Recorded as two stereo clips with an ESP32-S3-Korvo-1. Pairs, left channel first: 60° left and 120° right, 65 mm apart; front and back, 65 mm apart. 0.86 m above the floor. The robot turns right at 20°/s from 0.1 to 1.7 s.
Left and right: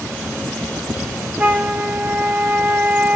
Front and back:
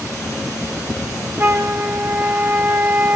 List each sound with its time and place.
1.4 s a flute: 165° right, 0.6 m; by 3.1 s 160° right, 0.6 m